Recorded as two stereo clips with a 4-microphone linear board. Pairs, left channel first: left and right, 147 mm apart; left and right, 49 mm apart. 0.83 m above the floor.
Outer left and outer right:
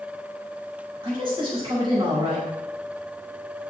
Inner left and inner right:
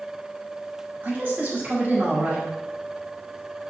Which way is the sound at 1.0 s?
35° right (ahead or behind).